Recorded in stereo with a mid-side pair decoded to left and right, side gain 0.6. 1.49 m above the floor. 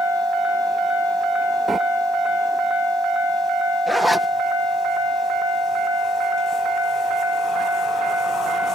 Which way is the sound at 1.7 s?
10° right.